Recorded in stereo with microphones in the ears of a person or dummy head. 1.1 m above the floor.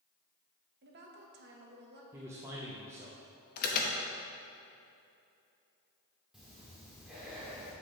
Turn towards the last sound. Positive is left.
turn(degrees=0)  # may be behind; listen again after turning